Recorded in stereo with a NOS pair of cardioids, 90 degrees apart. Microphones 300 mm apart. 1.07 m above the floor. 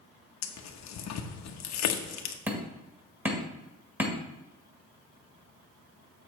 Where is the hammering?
5° right, 1.7 m.